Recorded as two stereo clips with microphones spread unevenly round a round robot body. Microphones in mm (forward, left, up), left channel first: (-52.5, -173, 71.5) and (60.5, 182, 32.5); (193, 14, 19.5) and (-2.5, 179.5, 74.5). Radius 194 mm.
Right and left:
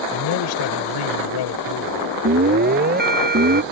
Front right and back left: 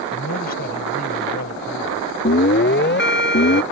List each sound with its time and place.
0.1 s a man speaking: 85° right
2.2 s an alarm: 5° left